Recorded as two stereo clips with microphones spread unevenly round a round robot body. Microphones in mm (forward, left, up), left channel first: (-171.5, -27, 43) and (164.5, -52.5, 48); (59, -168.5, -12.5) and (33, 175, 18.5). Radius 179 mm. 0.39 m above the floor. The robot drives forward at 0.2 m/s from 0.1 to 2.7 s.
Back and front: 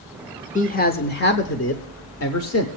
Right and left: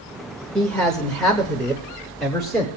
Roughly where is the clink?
No clink in this recording.